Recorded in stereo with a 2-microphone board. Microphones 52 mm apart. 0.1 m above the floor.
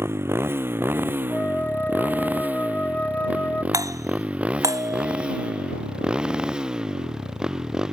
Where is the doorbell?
80° right.